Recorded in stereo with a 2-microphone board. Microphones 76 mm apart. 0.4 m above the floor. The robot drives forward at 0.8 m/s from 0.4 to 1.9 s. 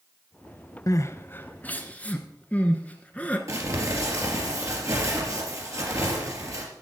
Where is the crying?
50° left (ahead or behind), 0.5 m; by 3.4 s 20° left (ahead or behind), 1.2 m.